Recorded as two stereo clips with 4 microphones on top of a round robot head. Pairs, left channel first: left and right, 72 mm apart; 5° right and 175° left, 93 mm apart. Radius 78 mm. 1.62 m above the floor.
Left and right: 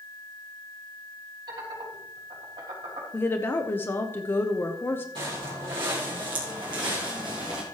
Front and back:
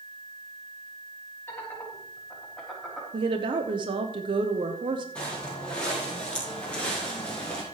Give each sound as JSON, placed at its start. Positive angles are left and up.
{"t": 1.5, "sound": "laughter", "azimuth_deg": -75, "distance_m": 3.5}
{"t": 3.1, "sound": "a woman speaking", "azimuth_deg": 145, "distance_m": 0.9}
{"t": 5.2, "sound": "footsteps", "azimuth_deg": -80, "distance_m": 4.0}